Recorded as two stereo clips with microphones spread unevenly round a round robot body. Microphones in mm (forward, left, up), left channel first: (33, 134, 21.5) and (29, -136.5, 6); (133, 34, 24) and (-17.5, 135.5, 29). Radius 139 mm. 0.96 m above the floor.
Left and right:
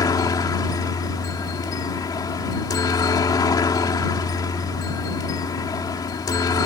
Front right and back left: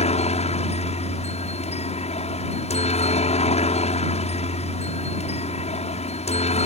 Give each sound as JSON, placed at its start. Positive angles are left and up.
{"t": 0.0, "sound": "a helicopter", "azimuth_deg": 15}